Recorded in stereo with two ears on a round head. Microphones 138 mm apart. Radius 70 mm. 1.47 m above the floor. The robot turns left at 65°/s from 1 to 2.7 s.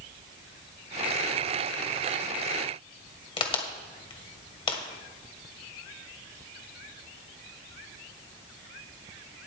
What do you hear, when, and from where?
3.4 s a crack: 35° left (ahead or behind), 1.9 m